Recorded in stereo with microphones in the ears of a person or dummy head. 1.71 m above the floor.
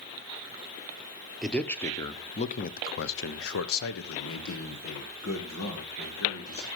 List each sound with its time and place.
1.4 s a man speaking: centre (ahead or behind), 1.1 m; by 6.7 s 65° left (ahead or behind), 2.5 m